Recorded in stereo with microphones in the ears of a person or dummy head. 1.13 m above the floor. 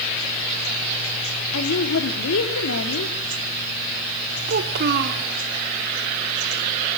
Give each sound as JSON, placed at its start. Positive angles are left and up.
{"t": 1.5, "sound": "a woman speaking", "side_deg": 75, "distance_m": 2.5}
{"t": 4.5, "sound": "a child speaking", "side_deg": -55, "distance_m": 1.5}